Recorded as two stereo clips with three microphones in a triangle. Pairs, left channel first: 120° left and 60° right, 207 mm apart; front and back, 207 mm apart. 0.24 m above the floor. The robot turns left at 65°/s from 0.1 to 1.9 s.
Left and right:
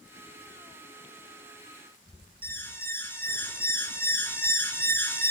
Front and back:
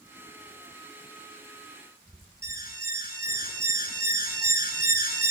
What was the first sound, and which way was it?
An alarm, 40° left.